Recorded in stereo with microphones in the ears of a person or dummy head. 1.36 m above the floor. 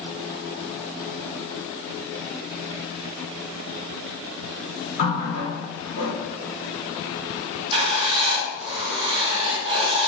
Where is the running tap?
75° left (ahead or behind), 1.8 m.